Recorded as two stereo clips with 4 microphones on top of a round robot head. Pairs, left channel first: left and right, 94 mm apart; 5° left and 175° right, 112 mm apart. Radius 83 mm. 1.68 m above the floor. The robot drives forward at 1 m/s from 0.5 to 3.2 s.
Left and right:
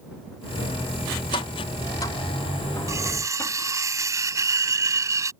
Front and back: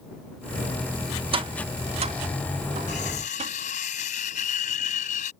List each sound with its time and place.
1.3 s tapping: 145° left; by 3.5 s 165° left
2.9 s cutlery clinking: 35° right